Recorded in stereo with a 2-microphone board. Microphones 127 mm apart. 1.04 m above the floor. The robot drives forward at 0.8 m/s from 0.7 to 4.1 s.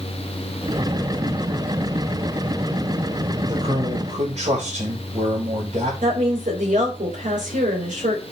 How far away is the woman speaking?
About 3.5 m.